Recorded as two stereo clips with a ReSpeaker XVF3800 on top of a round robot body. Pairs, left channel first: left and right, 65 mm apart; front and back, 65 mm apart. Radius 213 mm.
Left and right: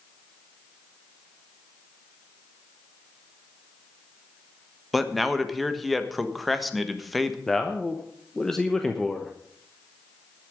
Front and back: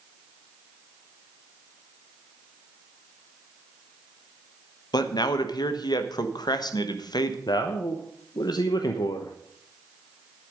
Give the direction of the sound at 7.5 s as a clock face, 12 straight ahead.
12 o'clock.